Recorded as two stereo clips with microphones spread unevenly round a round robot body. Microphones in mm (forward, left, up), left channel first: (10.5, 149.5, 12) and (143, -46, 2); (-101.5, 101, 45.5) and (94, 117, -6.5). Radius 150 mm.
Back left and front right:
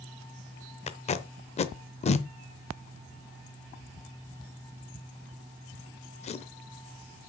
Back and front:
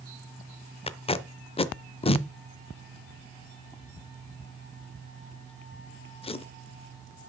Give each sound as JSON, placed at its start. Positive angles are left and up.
{"t": 0.9, "sound": "tape being pulled", "azimuth_deg": 130, "distance_m": 0.6}